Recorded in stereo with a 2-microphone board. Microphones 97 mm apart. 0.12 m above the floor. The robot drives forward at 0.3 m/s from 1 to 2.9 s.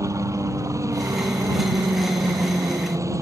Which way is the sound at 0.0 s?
35° right (ahead or behind).